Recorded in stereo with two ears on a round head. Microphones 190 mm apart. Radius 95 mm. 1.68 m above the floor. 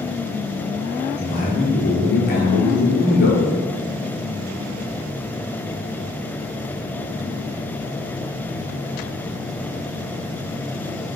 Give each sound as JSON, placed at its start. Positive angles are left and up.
{"t": 1.2, "sound": "a man speaking", "side_deg": 50, "distance_m": 1.0}